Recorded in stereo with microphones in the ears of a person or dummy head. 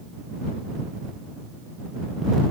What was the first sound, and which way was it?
Only background noise.